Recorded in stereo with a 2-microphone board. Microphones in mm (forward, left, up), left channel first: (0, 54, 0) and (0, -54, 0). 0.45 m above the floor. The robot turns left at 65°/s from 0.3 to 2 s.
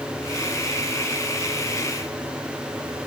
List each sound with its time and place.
Only background noise.